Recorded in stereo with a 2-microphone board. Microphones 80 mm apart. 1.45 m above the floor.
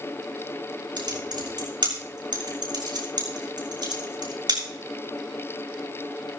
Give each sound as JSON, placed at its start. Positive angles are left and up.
{"t": 1.0, "sound": "typing on a keyboard", "side_deg": -65, "distance_m": 4.5}